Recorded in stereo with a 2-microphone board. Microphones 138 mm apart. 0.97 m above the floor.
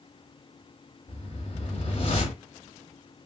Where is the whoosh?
45° left (ahead or behind), 1.1 m.